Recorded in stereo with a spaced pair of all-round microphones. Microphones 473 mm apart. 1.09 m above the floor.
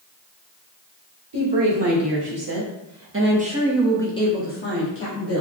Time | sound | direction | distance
1.3 | a woman speaking | 60° right (ahead or behind) | 1.5 m